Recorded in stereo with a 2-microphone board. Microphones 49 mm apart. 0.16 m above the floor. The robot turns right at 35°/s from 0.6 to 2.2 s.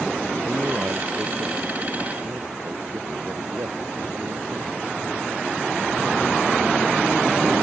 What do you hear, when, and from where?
0.5 s a man speaking: 140° right; by 4.9 s 85° right